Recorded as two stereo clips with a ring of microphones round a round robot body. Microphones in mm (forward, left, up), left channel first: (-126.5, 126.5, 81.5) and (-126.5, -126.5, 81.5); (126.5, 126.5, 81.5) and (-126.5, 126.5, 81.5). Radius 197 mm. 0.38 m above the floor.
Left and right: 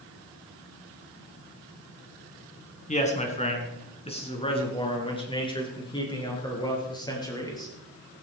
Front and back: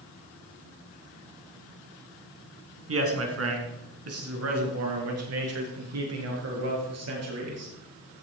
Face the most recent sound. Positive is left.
turn(degrees=165)